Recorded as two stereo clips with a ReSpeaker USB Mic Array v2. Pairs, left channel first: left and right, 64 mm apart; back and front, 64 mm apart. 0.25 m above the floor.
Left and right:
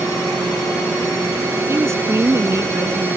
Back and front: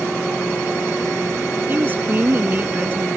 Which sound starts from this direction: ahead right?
A woman speaking, at 1.7 s.